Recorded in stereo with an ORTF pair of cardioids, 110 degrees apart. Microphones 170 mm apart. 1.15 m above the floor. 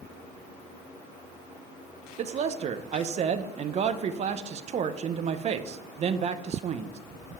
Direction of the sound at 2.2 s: 45° right.